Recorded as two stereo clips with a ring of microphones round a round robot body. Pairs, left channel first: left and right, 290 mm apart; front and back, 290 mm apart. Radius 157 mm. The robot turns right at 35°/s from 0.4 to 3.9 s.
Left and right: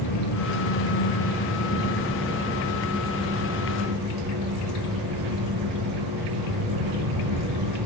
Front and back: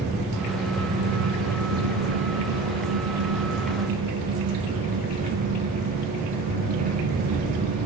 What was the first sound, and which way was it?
An engine running, 120° left.